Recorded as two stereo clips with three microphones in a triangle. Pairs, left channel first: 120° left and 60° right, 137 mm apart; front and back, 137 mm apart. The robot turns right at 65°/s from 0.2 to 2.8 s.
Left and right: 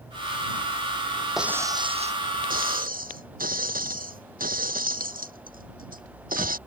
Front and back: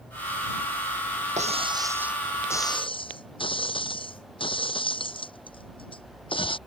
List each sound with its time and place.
1.4 s breaking glass: 145° right; by 6.6 s 55° right